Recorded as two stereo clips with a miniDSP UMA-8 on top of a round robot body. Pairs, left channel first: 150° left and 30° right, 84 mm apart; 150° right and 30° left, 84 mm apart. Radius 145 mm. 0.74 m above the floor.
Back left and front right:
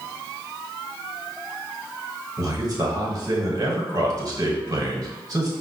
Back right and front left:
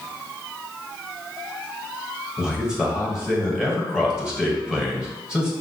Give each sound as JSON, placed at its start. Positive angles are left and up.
{"t": 2.4, "sound": "a man speaking", "azimuth_deg": -50, "distance_m": 1.3}